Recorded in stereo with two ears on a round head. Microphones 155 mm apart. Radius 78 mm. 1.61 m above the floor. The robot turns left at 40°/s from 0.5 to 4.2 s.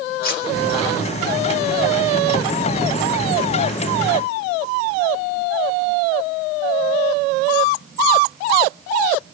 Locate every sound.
0.2 s cutlery clinking: 55° left (ahead or behind), 1.8 m